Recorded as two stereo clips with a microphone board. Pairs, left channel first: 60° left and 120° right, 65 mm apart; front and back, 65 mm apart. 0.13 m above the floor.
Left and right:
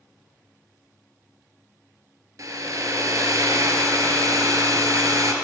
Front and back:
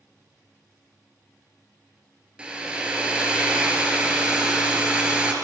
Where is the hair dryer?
105° right, 0.6 m.